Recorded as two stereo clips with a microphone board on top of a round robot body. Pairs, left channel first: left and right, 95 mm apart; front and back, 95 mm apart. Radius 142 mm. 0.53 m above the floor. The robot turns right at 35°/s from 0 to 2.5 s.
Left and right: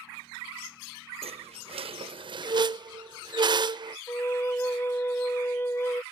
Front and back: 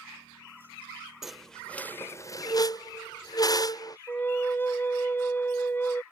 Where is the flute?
45° left.